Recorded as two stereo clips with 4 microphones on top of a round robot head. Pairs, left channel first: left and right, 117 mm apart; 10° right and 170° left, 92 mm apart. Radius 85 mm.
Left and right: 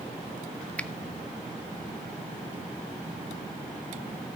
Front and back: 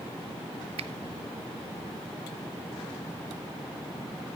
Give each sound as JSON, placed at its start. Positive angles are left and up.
{"t": 0.8, "sound": "a finger snap", "azimuth_deg": 170, "distance_m": 0.7}